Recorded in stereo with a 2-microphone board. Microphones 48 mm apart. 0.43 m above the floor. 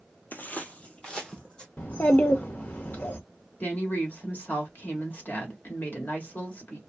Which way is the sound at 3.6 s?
40° left (ahead or behind).